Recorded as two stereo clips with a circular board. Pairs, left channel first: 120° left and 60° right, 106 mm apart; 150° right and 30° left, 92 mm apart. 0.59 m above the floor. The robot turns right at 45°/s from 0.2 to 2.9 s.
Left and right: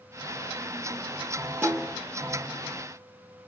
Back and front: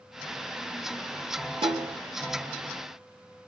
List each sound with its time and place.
1.6 s a snare drum: 10° left, 0.6 m; by 2.0 s 25° left, 0.6 m